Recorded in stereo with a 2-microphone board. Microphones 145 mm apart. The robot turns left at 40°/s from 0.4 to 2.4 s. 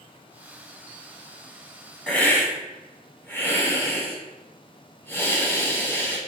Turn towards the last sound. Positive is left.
turn(degrees=15)  # may be behind; listen again after turning